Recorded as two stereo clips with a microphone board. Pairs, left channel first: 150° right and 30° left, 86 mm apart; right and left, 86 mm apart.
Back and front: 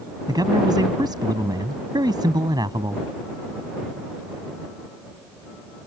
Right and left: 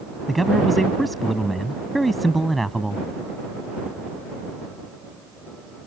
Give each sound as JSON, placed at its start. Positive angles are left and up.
{"t": 0.3, "sound": "a man speaking", "azimuth_deg": 0}